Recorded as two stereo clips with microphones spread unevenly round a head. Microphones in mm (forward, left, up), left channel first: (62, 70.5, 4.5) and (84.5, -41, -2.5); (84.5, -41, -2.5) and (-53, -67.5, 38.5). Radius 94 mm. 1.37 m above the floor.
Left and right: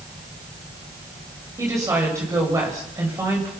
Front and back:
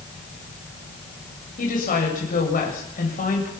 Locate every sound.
1.6 s a woman speaking: 15° right, 8 m